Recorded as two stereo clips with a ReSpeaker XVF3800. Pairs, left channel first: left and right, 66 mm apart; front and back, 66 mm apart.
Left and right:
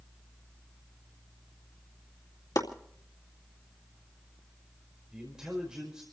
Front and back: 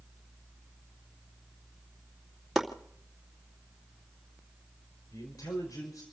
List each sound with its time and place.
2.5 s chopping: 90° left, 2.5 m
5.1 s a man speaking: 10° right, 5 m